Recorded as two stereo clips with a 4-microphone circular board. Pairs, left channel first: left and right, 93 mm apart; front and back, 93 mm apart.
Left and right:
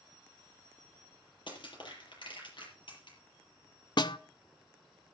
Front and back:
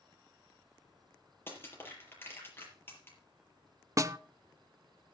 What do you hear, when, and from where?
1.5 s crushing: 65° left, 7 m
4.0 s a snare drum: 125° left, 0.6 m